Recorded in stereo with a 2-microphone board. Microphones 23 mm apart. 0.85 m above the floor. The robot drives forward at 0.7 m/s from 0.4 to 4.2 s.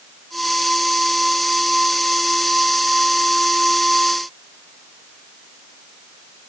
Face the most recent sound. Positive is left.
No sound to turn to.